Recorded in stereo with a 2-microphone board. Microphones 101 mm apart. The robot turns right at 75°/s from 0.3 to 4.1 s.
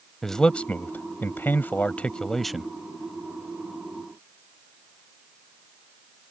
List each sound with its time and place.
0.2 s a man speaking: 5° left (ahead or behind); by 2.7 s 5° right (ahead or behind)